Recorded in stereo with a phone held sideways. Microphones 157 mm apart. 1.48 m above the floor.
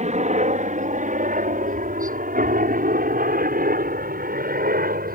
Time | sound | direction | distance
0.0 | a helicopter | 50° right (ahead or behind) | ?